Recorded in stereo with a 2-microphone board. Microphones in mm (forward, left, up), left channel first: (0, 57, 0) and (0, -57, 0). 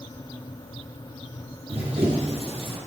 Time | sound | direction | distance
1.7 | running footsteps | 65° right (ahead or behind) | 3 m